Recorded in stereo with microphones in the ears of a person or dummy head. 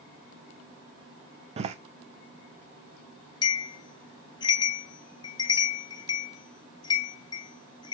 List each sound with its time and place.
1.6 s a door slam: 35° right (ahead or behind), 0.7 m
3.4 s a bell: 20° left (ahead or behind), 0.7 m